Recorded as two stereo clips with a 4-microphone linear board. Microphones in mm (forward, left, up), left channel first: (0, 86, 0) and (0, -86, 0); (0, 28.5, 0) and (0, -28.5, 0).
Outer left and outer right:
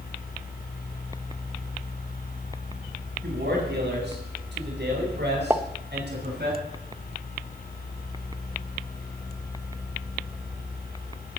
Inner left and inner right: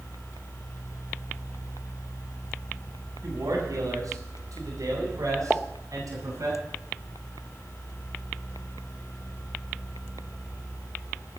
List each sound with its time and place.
3.2 s a man speaking: 85° right, 8 m; by 6.5 s 75° right (ahead or behind), 10 m
5.5 s a pop: 10° right (ahead or behind), 0.8 m